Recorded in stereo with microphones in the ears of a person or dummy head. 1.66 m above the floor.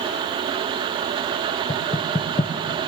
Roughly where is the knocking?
Centre.